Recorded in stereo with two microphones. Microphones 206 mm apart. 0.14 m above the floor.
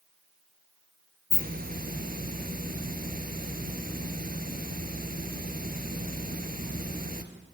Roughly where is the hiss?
Right.